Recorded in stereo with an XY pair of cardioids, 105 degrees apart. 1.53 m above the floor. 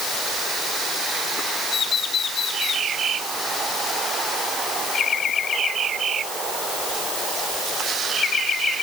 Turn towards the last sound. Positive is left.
No sound to turn to.